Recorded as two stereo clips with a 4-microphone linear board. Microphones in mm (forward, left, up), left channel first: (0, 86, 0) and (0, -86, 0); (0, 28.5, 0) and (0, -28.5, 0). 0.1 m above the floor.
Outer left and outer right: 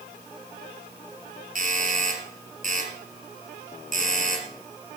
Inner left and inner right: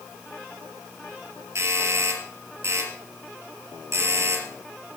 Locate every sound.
1.6 s a doorbell: 55° right (ahead or behind), 3.5 m